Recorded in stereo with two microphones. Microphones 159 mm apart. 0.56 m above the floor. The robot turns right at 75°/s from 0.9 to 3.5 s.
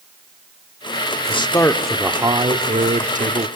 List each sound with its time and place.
1.3 s a man speaking: 135° left, 1.2 m; by 3.5 s 60° right, 1.2 m